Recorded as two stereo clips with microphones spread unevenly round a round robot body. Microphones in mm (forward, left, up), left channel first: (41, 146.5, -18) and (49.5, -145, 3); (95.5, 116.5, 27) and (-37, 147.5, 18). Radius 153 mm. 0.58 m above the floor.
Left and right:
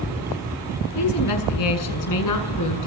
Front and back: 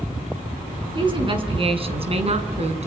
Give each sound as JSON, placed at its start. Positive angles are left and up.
{"t": 0.9, "sound": "a woman speaking", "azimuth_deg": 115, "distance_m": 7.0}